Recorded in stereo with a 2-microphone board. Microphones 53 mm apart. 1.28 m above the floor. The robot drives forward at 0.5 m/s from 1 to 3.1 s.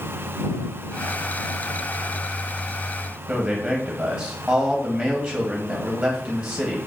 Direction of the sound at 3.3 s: 35° right (ahead or behind).